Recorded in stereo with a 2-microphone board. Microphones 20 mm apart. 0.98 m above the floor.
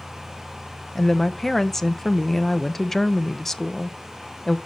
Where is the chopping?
No chopping in this recording.